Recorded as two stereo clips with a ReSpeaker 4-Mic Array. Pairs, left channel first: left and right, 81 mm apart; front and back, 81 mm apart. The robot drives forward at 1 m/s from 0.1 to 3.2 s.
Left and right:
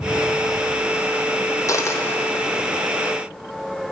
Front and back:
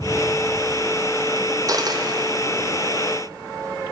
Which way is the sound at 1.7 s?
140° left.